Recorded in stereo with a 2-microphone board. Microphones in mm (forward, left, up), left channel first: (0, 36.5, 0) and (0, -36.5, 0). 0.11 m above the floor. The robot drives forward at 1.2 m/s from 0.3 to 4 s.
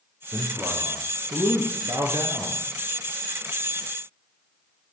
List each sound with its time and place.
0.3 s a man speaking: 35° right (ahead or behind), 3 m; by 2.6 s 55° right (ahead or behind), 2 m